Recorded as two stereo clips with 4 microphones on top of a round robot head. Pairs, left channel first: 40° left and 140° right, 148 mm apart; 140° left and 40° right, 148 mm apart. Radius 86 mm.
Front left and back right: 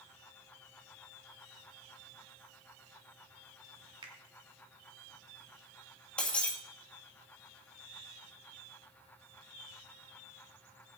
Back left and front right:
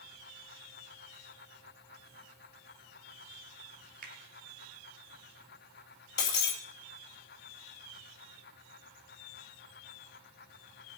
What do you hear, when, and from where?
4.0 s a finger snap: 75° right, 2.5 m
6.2 s breaking glass: 125° left, 2 m